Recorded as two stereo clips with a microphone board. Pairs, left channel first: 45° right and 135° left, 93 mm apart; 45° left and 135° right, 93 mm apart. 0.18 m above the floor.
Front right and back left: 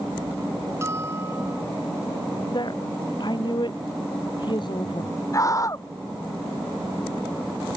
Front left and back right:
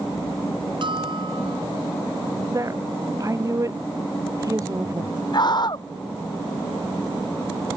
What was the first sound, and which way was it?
A bell, 165° right.